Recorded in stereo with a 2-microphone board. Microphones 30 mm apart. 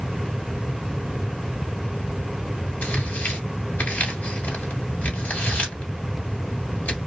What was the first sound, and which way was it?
Tearing paper, 70° left (ahead or behind).